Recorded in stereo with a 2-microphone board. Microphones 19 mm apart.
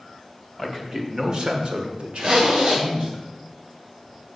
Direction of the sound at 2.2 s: 70° right (ahead or behind).